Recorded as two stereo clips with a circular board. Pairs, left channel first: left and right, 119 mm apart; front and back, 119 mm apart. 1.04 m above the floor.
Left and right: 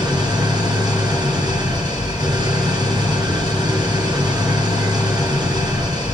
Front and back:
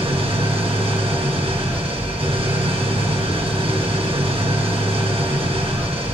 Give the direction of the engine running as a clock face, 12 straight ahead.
5 o'clock.